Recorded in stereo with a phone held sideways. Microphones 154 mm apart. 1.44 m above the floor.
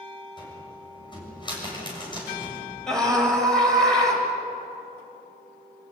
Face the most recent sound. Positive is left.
turn(degrees=5)  # may be behind; listen again after turning